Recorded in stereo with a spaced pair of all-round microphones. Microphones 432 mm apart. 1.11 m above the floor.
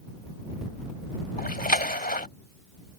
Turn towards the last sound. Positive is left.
turn(degrees=20)  # may be behind; listen again after turning